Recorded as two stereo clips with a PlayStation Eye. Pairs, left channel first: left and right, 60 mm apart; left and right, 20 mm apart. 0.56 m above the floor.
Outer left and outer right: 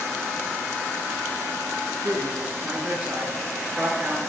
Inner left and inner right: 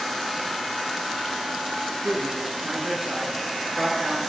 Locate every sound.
2.0 s a man speaking: 25° right (ahead or behind), 8 m